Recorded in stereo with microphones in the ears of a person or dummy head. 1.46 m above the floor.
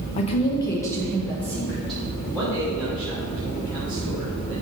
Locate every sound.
0.2 s a woman speaking: 35° left (ahead or behind), 1.0 m; by 2.0 s centre (ahead or behind), 3 m
2.3 s a man speaking: 5° left (ahead or behind), 3 m